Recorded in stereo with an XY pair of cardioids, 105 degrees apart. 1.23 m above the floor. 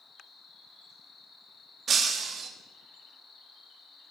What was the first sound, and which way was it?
An insect, 50° left.